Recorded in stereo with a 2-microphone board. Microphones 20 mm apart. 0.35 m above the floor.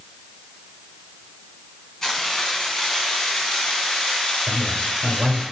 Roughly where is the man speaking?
Right.